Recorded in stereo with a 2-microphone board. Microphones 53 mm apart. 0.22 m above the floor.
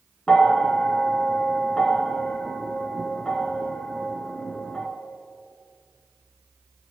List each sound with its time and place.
0.3 s a bell: 20° left (ahead or behind), 2.5 m